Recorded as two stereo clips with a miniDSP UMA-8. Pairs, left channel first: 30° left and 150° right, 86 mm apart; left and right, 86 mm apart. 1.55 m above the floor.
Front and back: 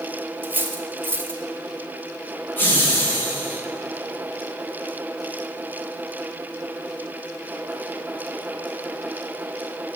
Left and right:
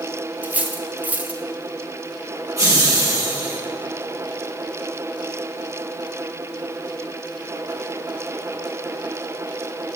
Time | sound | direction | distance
0.4 | cutlery clinking | 130° right | 0.7 m
2.6 | laughter | 35° right | 1.9 m